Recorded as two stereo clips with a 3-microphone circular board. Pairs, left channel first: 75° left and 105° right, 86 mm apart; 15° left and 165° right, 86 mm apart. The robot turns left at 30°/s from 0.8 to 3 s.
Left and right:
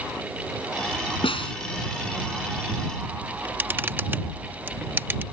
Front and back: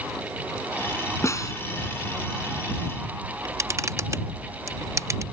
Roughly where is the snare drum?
Left.